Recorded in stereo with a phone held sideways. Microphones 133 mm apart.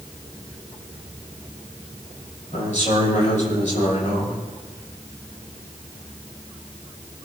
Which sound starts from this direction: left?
A man speaking, at 2.5 s.